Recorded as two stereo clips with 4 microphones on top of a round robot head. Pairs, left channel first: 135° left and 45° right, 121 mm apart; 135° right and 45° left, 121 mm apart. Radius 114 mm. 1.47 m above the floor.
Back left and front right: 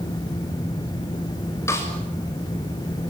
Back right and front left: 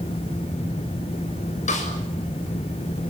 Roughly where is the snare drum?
Behind right.